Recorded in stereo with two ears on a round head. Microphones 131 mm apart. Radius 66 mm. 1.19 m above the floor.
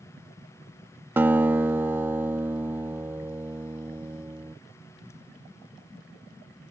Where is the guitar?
15° right (ahead or behind).